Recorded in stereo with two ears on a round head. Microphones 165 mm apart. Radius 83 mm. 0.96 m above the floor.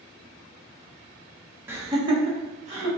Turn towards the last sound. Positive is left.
turn(degrees=-40)  # may be behind; listen again after turning